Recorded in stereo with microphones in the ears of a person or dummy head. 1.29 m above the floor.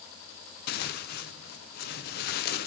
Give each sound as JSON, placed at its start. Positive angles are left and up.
{"t": 0.7, "sound": "tearing paper", "side_deg": 45, "distance_m": 0.7}